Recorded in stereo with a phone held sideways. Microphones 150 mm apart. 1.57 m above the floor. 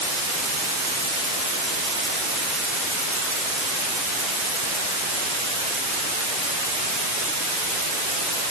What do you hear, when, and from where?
Only background noise.